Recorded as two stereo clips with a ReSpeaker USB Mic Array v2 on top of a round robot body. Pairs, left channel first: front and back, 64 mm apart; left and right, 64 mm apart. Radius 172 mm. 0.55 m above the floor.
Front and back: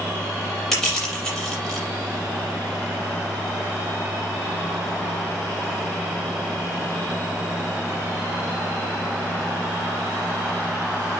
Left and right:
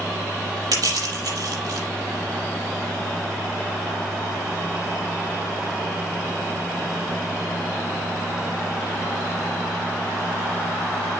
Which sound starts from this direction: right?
Crushing, at 0.7 s.